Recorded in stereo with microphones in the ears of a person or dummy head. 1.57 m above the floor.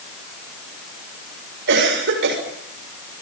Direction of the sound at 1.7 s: 65° right (ahead or behind).